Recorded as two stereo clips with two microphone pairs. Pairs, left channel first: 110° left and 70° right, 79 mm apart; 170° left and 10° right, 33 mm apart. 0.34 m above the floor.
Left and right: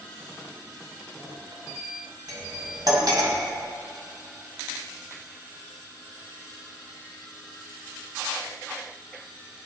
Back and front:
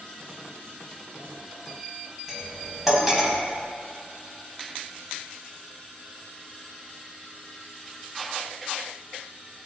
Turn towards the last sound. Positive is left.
turn(degrees=-95)